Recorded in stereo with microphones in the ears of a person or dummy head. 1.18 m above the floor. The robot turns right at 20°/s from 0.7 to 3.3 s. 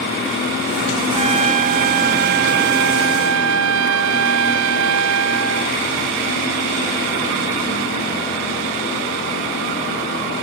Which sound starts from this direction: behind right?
A trumpet, at 1.1 s.